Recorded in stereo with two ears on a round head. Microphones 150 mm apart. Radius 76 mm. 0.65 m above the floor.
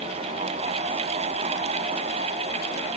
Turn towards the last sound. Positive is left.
No sound to turn to.